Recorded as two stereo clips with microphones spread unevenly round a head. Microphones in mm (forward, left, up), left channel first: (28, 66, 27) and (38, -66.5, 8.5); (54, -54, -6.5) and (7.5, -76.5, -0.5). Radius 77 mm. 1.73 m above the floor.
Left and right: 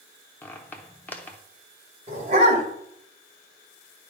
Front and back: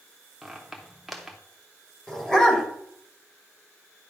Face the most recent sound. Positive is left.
turn(degrees=-55)